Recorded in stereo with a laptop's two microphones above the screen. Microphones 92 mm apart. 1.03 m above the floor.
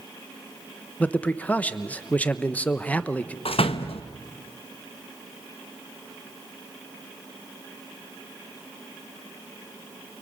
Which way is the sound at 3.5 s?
75° left (ahead or behind).